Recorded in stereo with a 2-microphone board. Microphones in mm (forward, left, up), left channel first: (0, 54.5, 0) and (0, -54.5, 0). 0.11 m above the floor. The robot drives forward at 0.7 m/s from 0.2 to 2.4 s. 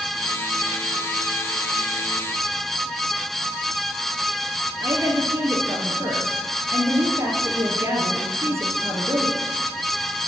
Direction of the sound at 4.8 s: 25° right (ahead or behind).